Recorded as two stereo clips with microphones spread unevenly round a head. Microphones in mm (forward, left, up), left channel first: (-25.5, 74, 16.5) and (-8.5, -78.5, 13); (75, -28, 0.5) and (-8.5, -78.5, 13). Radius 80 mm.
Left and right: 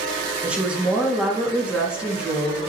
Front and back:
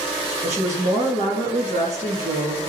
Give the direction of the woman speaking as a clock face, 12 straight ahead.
6 o'clock.